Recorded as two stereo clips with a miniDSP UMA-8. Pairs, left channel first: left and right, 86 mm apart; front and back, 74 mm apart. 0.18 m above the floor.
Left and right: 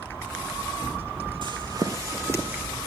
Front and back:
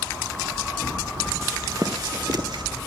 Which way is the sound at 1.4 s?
120° right.